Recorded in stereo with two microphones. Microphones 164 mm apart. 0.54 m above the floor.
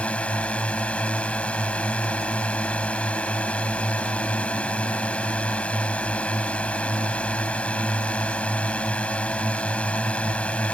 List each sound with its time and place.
0.0 s a drone: 5° left (ahead or behind)